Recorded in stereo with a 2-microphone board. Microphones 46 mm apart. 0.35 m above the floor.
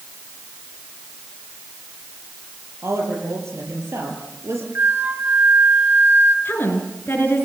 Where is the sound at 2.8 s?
70° right (ahead or behind), 7 m.